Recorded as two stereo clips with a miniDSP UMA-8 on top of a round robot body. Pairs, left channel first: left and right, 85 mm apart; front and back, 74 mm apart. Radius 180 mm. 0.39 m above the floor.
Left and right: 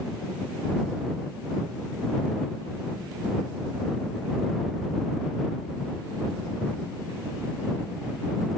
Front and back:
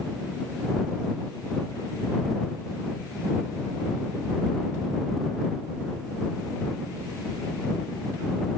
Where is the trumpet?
No trumpet in this recording.